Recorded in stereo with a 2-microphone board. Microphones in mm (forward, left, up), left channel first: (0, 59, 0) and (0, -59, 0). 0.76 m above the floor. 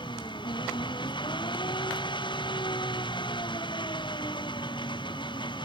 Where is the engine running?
40° left (ahead or behind).